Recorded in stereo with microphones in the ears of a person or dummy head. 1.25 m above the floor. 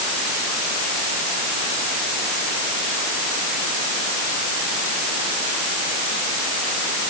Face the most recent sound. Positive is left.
No sound to turn to.